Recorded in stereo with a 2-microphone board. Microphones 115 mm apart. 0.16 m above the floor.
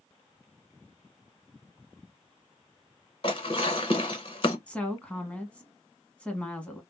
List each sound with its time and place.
3.2 s dishes clattering: 45° left (ahead or behind), 1.0 m
4.7 s a woman speaking: 10° left (ahead or behind), 1.0 m